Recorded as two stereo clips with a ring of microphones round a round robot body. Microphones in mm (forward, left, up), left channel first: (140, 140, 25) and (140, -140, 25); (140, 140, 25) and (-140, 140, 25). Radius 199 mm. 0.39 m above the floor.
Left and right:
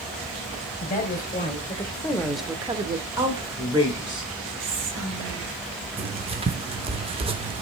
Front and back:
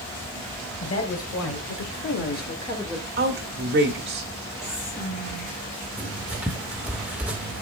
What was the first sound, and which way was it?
A woman speaking, 35° left.